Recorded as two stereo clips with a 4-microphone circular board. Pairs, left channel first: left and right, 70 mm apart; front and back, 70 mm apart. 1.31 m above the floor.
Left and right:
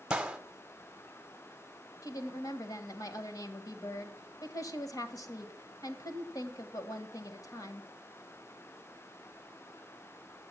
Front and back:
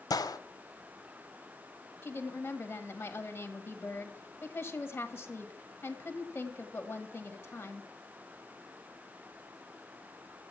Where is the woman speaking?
70° left, 1.4 m.